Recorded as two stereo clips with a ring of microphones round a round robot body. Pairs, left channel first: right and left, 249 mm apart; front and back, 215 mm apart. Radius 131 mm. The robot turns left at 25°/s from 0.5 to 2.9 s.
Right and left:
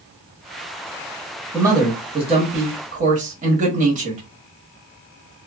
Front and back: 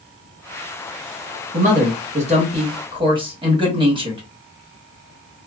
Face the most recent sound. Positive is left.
turn(degrees=125)